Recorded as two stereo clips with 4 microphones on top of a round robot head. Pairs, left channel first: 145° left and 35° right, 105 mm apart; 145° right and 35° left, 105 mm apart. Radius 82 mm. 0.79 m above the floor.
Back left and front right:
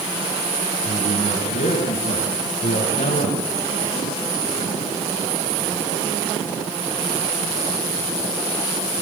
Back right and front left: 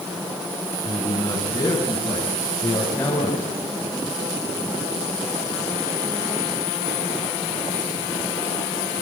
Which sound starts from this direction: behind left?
A man speaking, at 0.8 s.